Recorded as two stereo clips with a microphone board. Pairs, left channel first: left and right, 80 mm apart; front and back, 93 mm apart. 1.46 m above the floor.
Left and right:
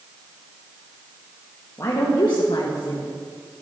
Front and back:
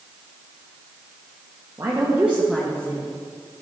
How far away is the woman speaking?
About 1.6 m.